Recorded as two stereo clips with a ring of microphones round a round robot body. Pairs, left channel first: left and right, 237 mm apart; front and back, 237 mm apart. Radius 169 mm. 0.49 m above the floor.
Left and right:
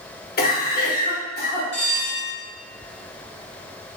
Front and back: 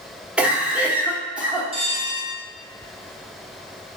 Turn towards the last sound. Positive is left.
turn(degrees=120)